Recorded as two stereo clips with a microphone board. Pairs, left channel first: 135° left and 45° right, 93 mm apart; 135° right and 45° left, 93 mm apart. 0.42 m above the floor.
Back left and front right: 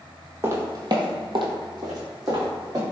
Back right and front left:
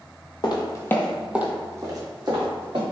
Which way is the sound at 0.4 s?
105° right.